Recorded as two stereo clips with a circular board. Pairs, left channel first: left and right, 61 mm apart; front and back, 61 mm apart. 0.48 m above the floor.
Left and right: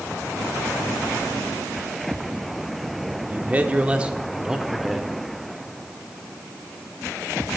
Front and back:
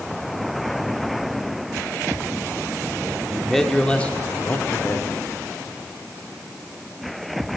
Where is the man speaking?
95° right, 0.9 m; by 5.1 s 5° right, 1.2 m.